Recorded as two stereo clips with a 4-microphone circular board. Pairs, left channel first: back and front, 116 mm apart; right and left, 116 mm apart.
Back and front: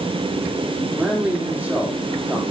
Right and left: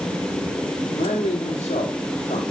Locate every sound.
0.9 s a man speaking: 75° right, 2 m